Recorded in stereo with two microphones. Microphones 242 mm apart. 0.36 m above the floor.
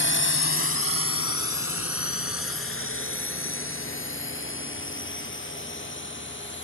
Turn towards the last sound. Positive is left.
turn(degrees=50)  # may be behind; listen again after turning